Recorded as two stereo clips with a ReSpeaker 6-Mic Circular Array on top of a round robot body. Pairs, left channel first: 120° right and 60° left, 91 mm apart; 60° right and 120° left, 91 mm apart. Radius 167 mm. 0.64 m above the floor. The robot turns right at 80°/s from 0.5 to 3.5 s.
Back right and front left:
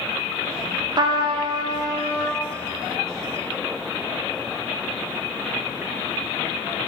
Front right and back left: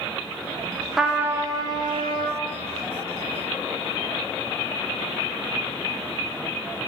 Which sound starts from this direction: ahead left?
A trumpet, at 1.0 s.